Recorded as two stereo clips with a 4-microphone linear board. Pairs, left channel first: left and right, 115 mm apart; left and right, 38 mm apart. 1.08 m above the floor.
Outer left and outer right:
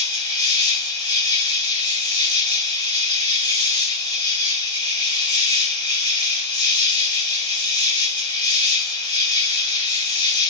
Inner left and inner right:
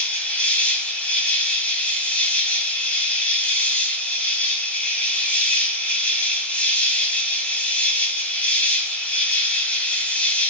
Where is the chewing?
I don't hear chewing.